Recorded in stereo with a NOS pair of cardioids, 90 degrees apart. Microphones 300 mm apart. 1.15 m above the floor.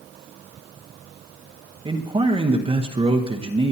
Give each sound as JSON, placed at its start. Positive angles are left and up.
{"t": 1.9, "sound": "a man speaking", "azimuth_deg": -20, "distance_m": 1.0}